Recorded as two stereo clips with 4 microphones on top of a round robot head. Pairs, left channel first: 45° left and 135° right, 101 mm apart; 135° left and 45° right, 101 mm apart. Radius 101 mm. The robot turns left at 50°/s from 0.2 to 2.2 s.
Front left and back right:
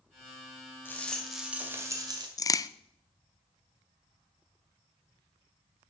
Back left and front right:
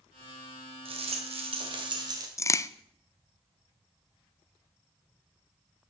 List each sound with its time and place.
0.8 s a rattle: 25° right, 2 m; by 2.3 s 90° right, 2 m
2.4 s a crack: 85° left, 0.5 m